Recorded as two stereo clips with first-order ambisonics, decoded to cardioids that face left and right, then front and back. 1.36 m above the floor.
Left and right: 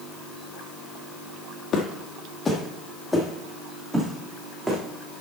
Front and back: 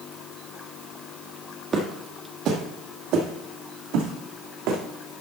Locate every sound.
1.7 s footsteps: 125° left, 1.7 m; by 4.8 s 165° right, 3.5 m